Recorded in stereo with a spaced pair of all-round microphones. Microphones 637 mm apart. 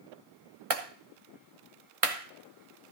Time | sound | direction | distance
0.7 | a clap | 60° right (ahead or behind) | 1.3 m